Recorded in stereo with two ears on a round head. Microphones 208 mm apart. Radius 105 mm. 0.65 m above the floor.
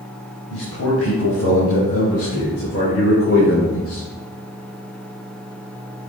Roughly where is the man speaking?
Left.